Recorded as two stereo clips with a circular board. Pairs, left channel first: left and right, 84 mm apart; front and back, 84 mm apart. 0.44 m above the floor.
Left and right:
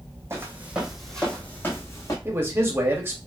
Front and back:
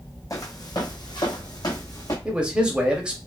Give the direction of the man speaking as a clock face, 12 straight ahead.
4 o'clock.